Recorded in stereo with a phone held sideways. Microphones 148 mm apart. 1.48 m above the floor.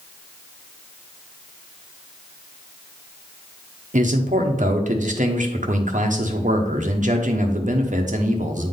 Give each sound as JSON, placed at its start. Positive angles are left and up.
{"t": 3.9, "sound": "a man speaking", "side_deg": -55, "distance_m": 1.0}